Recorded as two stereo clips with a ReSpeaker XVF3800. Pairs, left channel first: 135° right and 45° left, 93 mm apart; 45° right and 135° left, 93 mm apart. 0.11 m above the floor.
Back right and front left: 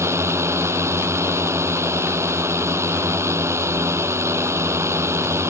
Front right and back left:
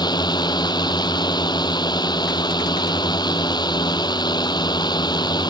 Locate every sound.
0.0 s a drone: 15° right